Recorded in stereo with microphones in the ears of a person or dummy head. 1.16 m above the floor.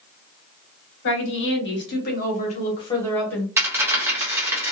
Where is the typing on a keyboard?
I don't hear typing on a keyboard.